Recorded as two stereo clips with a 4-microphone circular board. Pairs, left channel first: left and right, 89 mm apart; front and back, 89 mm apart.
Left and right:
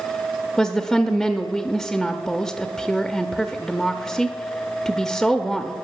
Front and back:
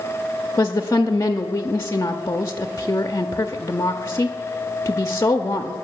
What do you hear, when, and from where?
0.6 s a woman speaking: 5° left, 0.6 m